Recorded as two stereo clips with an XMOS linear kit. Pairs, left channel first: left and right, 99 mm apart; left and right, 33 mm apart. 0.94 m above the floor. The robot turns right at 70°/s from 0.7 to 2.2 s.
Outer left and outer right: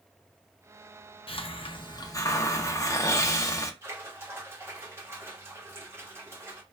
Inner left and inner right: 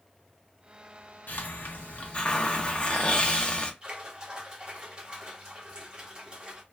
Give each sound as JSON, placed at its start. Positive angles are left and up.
{"t": 1.3, "sound": "a hiss", "azimuth_deg": 80, "distance_m": 0.5}
{"t": 3.8, "sound": "a splash", "side_deg": -25, "distance_m": 1.1}